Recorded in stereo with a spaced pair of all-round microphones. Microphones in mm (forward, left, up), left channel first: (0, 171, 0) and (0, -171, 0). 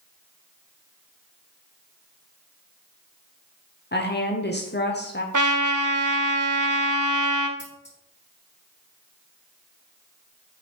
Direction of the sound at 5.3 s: 65° right (ahead or behind).